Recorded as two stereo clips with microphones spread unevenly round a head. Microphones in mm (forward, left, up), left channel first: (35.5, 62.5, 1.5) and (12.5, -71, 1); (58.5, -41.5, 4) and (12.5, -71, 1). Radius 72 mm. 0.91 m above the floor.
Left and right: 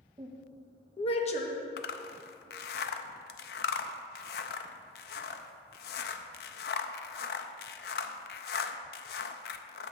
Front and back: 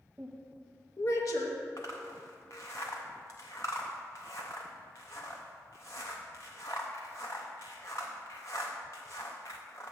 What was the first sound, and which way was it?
A woman speaking, 125° right.